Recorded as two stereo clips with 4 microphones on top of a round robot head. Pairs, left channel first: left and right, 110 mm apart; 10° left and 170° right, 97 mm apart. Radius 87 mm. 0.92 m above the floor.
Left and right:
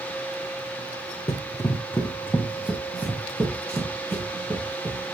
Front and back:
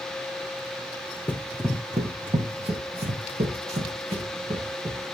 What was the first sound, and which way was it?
Running footsteps, 75° left.